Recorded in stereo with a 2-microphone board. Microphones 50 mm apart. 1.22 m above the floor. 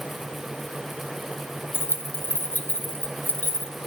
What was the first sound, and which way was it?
Keys jangling, 40° left (ahead or behind).